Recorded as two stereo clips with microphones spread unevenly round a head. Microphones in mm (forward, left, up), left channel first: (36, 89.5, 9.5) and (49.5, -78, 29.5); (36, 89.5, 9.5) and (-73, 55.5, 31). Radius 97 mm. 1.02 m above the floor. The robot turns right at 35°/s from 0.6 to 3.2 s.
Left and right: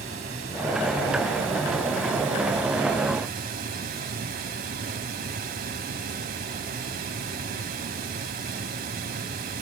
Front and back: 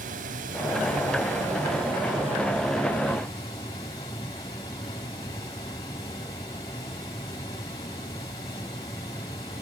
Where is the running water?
145° right, 2 m; by 9.6 s 50° right, 2 m.